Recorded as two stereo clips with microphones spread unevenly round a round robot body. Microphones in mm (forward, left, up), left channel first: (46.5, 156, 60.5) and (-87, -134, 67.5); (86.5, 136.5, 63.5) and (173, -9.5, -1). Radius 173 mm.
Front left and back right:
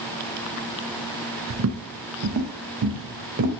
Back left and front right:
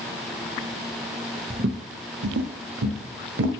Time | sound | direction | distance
1.5 | footsteps | 120° right | 0.6 m